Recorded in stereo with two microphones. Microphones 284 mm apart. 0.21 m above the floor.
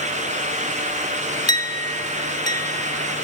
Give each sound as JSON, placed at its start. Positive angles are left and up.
{"t": 1.5, "sound": "a clink", "side_deg": 15, "distance_m": 0.8}